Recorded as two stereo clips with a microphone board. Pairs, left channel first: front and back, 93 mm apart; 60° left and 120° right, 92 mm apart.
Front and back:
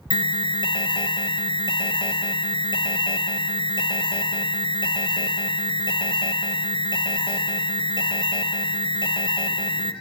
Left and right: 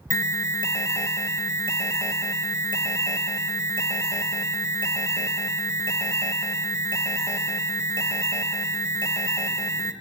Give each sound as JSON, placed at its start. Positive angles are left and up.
{"t": 0.1, "sound": "an alarm", "azimuth_deg": 5, "distance_m": 1.0}